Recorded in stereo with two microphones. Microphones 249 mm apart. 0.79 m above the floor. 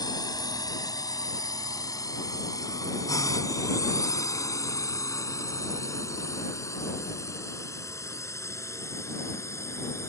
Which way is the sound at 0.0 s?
15° left (ahead or behind).